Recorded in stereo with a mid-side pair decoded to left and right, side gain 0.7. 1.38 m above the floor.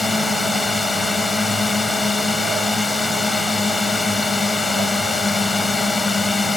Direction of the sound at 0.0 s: 15° left.